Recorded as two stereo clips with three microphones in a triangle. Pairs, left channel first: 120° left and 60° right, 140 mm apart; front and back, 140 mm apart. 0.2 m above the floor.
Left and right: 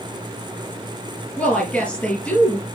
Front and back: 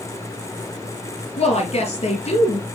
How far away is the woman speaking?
About 3.5 m.